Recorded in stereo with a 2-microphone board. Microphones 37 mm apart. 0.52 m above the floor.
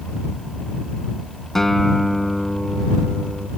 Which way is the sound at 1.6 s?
10° left (ahead or behind).